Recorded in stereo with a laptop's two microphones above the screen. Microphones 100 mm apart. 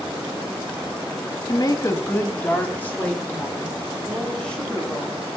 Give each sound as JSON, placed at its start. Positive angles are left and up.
{"t": 1.5, "sound": "a woman speaking", "side_deg": 45, "distance_m": 0.8}